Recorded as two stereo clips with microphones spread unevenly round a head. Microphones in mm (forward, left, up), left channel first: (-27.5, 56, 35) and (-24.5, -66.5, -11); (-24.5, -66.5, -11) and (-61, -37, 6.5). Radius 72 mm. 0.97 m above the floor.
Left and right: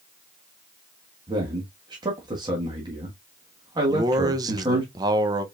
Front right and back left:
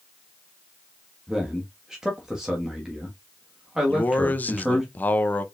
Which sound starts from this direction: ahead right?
A man speaking, at 3.9 s.